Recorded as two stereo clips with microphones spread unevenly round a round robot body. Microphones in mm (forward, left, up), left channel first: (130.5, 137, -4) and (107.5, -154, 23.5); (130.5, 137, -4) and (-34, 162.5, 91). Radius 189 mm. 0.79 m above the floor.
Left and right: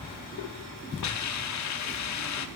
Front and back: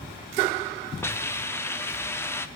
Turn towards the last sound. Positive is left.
turn(degrees=60)